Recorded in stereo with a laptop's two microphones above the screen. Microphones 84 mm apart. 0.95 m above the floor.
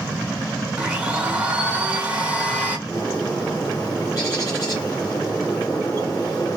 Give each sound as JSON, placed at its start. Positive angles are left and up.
{"t": 0.8, "sound": "a blender", "side_deg": -15, "distance_m": 0.9}
{"t": 2.9, "sound": "a bird", "side_deg": 45, "distance_m": 1.0}